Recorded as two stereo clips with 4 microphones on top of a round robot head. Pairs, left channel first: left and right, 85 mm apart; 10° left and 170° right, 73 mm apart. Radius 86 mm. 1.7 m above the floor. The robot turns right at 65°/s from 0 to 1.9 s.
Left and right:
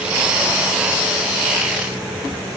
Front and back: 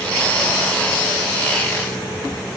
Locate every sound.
Only background noise.